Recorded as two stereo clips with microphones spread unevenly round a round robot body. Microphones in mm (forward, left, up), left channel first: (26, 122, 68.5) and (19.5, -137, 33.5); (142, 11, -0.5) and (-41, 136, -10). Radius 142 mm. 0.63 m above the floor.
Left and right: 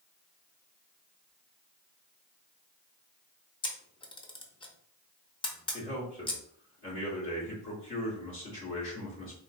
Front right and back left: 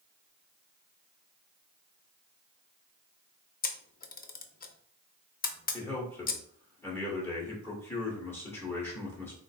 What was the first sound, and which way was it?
A camera shutter, 20° left.